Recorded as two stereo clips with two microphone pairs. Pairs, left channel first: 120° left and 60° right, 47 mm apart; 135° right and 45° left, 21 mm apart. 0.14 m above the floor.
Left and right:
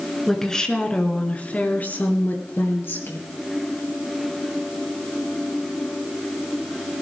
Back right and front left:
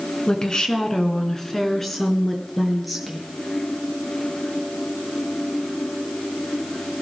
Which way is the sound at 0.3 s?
165° right.